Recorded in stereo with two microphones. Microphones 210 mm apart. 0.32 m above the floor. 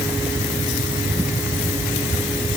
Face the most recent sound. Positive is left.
No sound to turn to.